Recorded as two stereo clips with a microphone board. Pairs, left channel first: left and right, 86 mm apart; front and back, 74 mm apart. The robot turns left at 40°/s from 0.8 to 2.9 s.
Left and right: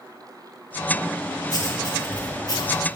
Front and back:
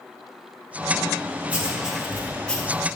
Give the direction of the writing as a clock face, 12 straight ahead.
8 o'clock.